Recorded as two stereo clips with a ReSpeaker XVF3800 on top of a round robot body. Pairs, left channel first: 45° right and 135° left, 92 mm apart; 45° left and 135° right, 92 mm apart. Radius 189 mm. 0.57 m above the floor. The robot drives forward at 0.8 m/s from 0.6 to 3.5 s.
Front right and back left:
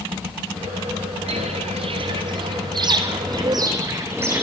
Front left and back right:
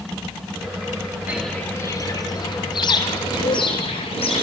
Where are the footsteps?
150° left, 0.6 m; by 4.4 s 65° left, 2.5 m.